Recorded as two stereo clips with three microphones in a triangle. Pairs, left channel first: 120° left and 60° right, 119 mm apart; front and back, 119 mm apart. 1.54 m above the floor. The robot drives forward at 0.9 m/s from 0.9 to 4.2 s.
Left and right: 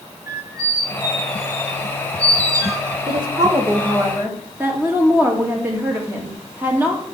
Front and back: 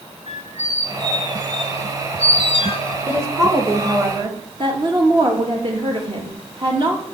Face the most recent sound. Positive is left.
turn(degrees=-135)